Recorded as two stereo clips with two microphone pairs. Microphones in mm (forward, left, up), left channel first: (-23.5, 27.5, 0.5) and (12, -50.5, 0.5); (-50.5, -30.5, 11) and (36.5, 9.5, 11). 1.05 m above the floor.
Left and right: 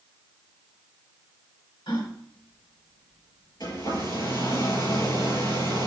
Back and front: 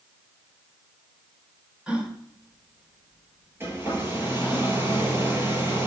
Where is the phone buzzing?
I don't hear a phone buzzing.